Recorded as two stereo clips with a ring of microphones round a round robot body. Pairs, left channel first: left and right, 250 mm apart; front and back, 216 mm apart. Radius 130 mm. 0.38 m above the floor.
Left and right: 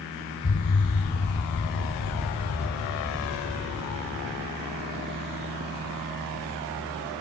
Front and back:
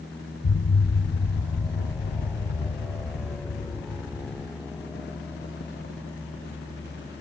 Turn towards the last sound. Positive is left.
turn(degrees=40)